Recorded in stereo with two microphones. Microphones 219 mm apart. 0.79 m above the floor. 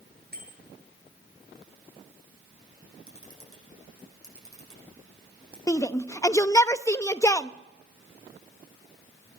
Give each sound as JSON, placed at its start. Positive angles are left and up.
{"t": 0.3, "sound": "a bicycle bell", "side_deg": -45, "distance_m": 8.5}
{"t": 3.1, "sound": "a camera shutter", "side_deg": -75, "distance_m": 7.0}
{"t": 5.7, "sound": "a shout", "side_deg": 15, "distance_m": 0.5}